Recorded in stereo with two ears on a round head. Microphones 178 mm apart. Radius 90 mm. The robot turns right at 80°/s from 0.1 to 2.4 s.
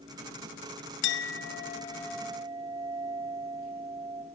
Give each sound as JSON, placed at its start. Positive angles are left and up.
{"t": 1.0, "sound": "a clink", "azimuth_deg": 90, "distance_m": 0.5}